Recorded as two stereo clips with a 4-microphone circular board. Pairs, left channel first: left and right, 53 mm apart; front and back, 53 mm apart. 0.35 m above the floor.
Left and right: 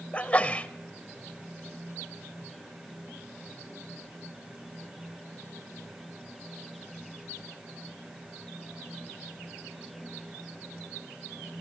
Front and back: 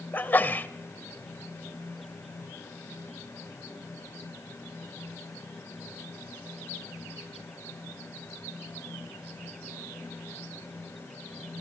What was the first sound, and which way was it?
A sneeze, 35° left.